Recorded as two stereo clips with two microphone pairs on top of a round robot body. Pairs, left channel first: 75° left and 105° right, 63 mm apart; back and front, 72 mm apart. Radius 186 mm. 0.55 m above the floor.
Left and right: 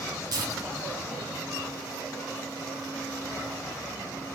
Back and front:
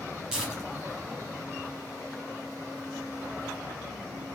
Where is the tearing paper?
80° right, 1.7 m.